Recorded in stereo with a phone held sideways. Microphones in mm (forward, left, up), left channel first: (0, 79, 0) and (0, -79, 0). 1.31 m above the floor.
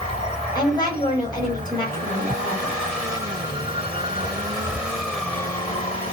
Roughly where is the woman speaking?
Left.